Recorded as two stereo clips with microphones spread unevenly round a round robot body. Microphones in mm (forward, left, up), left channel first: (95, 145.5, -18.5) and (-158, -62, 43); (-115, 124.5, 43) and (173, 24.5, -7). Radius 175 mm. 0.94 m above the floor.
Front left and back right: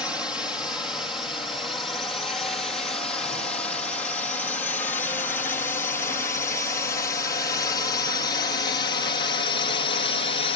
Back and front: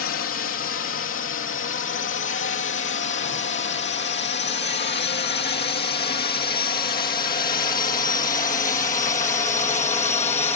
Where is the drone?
125° left; by 10.6 s 90° left.